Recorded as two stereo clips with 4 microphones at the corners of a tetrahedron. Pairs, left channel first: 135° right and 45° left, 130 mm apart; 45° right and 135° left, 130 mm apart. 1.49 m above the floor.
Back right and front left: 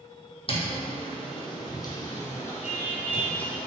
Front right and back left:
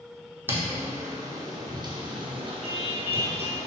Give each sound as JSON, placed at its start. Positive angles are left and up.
{"t": 0.5, "sound": "footsteps", "azimuth_deg": -155, "distance_m": 2.0}